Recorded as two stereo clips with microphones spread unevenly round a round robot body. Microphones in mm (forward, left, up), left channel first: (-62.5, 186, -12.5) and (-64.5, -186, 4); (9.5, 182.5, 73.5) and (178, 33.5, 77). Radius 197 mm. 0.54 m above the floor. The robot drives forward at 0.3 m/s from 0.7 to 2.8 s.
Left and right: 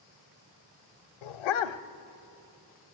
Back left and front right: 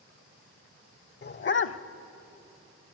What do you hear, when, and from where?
1.2 s a dog barking: 90° left, 0.7 m; by 1.8 s 105° left, 0.8 m